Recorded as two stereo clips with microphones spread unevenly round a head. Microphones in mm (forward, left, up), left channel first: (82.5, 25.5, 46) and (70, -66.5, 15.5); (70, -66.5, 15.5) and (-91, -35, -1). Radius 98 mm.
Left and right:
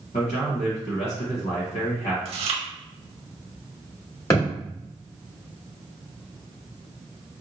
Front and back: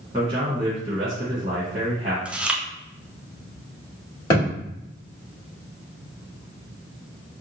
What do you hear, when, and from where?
0.1 s a man speaking: 95° left, 1.4 m
2.2 s chewing: 105° right, 0.6 m
4.3 s a thud: 50° left, 2.0 m